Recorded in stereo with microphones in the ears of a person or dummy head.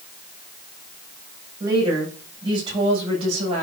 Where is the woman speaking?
20° right (ahead or behind), 7 m; by 3.6 s 30° right (ahead or behind), 7 m.